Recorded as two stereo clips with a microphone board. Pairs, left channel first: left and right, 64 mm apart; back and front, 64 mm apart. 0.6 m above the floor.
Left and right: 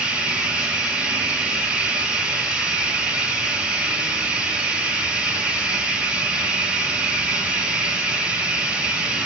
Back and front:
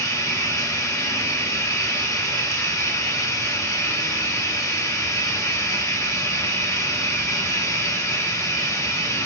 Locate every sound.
0.0 s running water: 155° right, 1.3 m